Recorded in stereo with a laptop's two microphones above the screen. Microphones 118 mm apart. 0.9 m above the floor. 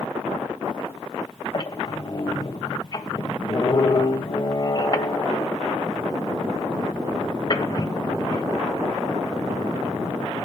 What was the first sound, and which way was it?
A squeak, 35° left (ahead or behind).